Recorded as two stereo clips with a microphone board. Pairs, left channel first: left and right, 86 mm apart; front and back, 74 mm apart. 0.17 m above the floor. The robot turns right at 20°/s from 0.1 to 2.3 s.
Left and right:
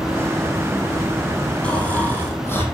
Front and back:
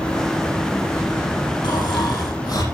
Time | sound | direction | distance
1.6 | snoring | 15° left | 5.5 m